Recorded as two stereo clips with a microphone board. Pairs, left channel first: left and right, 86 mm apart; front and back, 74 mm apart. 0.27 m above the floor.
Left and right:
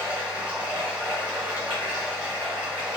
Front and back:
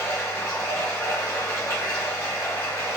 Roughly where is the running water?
Ahead.